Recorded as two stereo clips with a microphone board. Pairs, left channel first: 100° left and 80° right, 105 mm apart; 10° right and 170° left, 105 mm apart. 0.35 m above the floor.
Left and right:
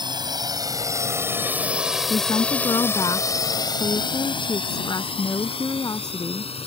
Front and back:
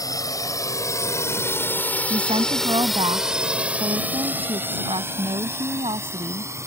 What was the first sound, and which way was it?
A drone, 55° right.